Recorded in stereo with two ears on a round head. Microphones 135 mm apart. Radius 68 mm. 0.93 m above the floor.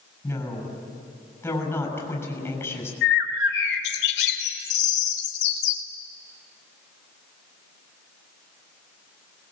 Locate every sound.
0.2 s a woman speaking: 15° left (ahead or behind), 6 m
3.0 s a bird: 85° left, 3 m